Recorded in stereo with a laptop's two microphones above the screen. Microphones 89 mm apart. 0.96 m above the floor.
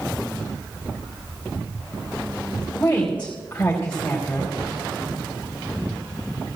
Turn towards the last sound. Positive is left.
turn(degrees=20)  # may be behind; listen again after turning